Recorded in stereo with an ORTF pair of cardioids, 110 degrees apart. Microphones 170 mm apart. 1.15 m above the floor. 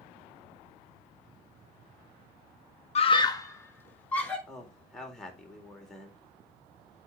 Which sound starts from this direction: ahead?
A man speaking, at 4.5 s.